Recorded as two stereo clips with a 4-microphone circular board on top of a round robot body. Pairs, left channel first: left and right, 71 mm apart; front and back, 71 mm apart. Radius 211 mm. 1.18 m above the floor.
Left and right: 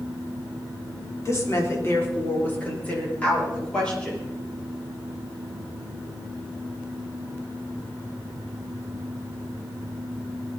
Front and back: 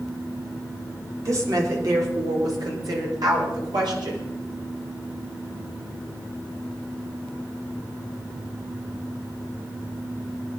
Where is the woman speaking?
135° left, 4 m; by 4.2 s 170° left, 7 m.